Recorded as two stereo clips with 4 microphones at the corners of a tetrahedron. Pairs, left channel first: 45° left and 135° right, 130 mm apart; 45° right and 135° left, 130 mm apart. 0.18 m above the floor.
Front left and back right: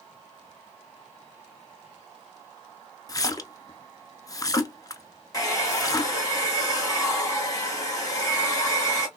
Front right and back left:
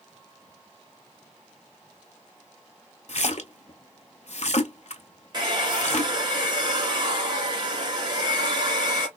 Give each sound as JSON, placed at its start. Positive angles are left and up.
{"t": 3.1, "sound": "a splash", "azimuth_deg": -15, "distance_m": 0.6}
{"t": 5.3, "sound": "a hair dryer", "azimuth_deg": 100, "distance_m": 1.5}